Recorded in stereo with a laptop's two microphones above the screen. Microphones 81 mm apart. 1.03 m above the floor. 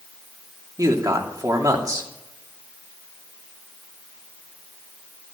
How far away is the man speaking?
About 3 m.